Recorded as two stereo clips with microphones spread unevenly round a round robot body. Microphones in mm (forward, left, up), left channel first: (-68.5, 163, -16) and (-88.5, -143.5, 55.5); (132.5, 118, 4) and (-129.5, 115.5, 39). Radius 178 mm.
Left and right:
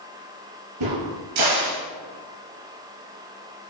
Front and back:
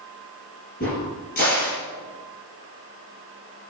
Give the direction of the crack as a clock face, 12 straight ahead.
2 o'clock.